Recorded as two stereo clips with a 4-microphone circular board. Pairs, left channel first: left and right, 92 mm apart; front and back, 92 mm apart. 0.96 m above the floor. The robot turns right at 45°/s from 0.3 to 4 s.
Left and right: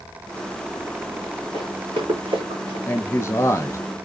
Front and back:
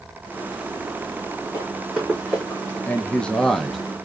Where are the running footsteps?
120° right, 4 m; by 2.8 s 70° right, 3 m.